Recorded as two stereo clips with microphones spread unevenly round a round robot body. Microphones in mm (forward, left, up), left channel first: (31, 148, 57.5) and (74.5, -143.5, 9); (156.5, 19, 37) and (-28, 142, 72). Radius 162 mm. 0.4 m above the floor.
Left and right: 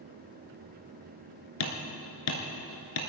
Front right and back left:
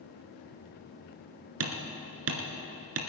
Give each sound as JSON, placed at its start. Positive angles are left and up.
{"t": 1.6, "sound": "hammering", "azimuth_deg": 130, "distance_m": 2.0}